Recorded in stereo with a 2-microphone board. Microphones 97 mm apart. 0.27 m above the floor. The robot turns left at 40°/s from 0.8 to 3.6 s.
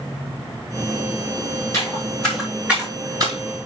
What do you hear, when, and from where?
1.7 s footsteps: 30° left (ahead or behind), 4 m; by 3.4 s 45° right (ahead or behind), 4 m